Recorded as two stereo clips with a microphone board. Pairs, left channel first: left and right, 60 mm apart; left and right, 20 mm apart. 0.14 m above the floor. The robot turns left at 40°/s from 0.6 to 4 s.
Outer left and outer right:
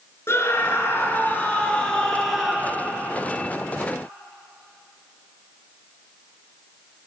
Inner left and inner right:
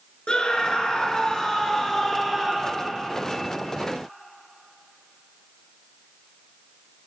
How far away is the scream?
About 1.6 m.